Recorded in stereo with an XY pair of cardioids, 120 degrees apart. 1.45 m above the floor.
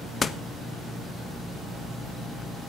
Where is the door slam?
35° left, 1.2 m.